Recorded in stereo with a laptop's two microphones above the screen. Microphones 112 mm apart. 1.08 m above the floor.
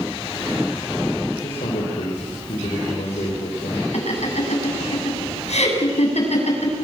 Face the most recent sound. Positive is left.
turn(degrees=75)  # may be behind; listen again after turning